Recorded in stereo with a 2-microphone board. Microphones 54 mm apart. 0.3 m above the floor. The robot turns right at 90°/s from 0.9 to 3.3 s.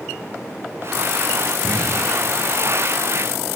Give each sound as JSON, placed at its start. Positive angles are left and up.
{"t": 1.6, "sound": "an explosion", "side_deg": 30, "distance_m": 0.9}